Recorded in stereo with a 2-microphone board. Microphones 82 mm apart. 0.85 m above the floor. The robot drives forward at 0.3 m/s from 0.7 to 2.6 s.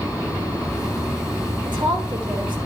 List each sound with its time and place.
1.6 s a woman speaking: 70° right (ahead or behind), 3.5 m